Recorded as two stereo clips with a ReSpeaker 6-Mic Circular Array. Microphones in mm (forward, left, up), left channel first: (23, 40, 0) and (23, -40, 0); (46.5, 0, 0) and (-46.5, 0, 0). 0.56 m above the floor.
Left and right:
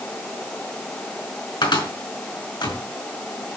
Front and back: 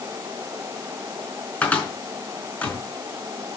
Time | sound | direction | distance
1.6 | a cupboard door | 75° left | 4.5 m